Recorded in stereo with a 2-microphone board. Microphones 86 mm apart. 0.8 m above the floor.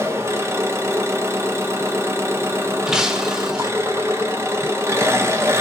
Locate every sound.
0.0 s an engine running: 30° right (ahead or behind), 0.7 m
2.9 s breaking glass: 5° right (ahead or behind), 0.5 m